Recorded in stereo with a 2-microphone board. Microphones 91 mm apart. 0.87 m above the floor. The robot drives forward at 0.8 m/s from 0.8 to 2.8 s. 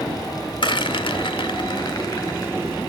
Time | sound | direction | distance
0.6 | a rattle | 60° left (ahead or behind) | 1.0 m